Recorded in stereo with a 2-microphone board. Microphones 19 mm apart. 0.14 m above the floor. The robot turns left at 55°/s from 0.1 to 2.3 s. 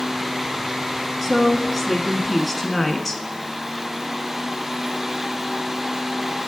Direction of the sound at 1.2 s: 10° right (ahead or behind).